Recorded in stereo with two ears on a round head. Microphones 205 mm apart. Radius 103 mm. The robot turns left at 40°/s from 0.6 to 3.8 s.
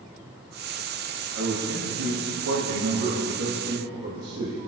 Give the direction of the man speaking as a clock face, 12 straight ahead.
2 o'clock.